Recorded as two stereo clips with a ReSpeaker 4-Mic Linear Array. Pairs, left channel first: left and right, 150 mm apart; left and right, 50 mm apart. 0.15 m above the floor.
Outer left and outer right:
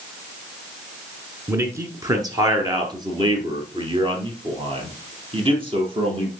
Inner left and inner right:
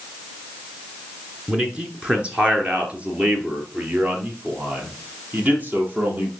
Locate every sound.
1.5 s a man speaking: 20° right (ahead or behind), 1.6 m; by 6.3 s 35° right (ahead or behind), 3.5 m